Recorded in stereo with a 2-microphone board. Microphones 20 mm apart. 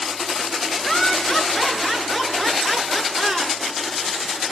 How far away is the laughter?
About 5 m.